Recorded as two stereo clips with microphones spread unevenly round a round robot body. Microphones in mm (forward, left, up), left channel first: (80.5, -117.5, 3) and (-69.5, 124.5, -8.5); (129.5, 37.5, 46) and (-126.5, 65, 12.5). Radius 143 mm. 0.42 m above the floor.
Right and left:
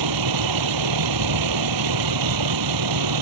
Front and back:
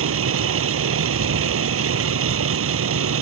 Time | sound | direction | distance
0.0 | a vehicle | 135° left | ?